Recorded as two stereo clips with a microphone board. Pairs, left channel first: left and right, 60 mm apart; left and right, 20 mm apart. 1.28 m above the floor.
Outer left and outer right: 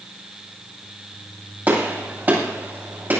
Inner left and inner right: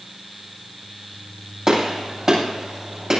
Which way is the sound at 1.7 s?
30° right (ahead or behind).